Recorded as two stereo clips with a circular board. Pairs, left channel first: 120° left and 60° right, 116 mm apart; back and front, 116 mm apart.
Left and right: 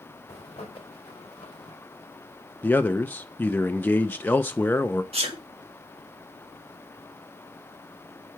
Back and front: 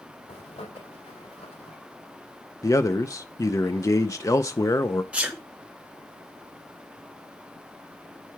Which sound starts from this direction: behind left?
A zipper, at 0.3 s.